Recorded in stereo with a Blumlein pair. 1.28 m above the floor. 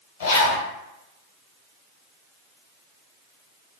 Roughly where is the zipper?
Ahead left.